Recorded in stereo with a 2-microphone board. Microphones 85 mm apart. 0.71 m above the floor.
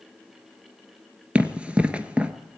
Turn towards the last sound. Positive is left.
turn(degrees=-15)  # may be behind; listen again after turning